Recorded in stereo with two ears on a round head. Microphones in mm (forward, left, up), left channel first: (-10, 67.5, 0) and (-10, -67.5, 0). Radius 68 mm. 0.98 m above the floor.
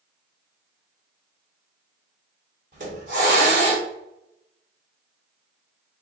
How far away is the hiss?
About 1.4 m.